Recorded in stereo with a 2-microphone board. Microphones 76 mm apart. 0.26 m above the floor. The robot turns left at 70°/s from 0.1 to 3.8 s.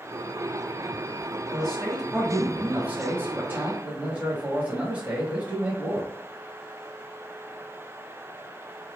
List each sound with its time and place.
1.5 s a man speaking: 10° left (ahead or behind), 1.0 m; by 6.1 s 20° right (ahead or behind), 1.0 m